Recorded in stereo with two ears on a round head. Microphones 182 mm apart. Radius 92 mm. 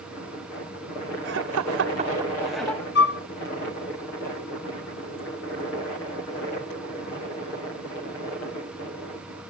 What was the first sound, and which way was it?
Laughter, 60° right (ahead or behind).